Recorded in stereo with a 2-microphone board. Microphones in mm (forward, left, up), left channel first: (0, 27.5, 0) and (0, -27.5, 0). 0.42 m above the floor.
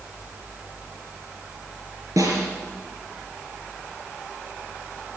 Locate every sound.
2.2 s a snare drum: 80° right, 5 m